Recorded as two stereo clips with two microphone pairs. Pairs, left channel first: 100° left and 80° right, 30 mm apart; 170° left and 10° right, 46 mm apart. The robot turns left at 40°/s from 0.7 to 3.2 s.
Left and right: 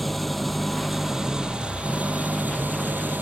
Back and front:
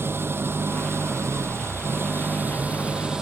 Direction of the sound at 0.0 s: 15° left.